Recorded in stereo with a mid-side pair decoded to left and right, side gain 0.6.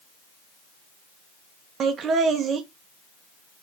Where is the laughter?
45° right, 0.9 m.